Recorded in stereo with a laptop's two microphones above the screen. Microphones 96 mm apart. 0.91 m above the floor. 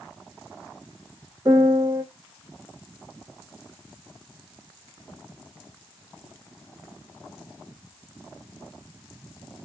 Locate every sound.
1.4 s a piano: 30° right (ahead or behind), 0.5 m